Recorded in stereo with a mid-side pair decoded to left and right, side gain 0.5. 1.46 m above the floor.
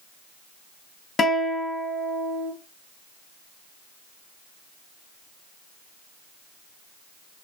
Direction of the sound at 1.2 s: 40° left.